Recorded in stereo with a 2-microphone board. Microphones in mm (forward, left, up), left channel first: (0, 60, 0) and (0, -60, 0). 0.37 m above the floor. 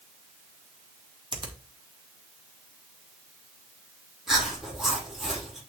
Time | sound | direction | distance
1.3 | a finger snap | 40° right (ahead or behind) | 2 m
4.3 | chewing | centre (ahead or behind) | 5.5 m